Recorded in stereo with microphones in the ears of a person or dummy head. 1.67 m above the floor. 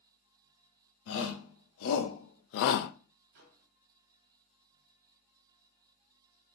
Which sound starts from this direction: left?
A shout, at 1.1 s.